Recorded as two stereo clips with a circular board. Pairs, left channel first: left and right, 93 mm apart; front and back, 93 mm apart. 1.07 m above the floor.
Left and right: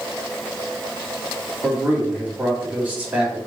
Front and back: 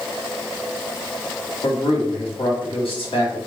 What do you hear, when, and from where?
1.6 s a man speaking: 15° right, 2.0 m